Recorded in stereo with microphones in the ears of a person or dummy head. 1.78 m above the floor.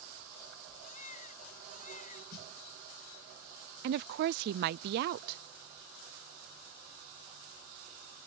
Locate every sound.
0.8 s a baby crying: 50° left (ahead or behind)
2.3 s a snare drum: 60° left (ahead or behind)
3.8 s a woman speaking: 60° right (ahead or behind)